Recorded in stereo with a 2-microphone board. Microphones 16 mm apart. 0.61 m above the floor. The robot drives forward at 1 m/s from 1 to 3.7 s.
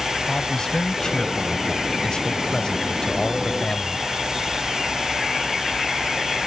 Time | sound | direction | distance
0.3 | a man speaking | 50° left (ahead or behind) | ?